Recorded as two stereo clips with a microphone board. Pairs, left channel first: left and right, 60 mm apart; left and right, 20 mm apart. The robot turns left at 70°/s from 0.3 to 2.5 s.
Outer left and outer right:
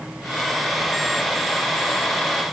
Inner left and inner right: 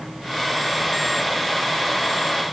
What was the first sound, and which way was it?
Only background noise.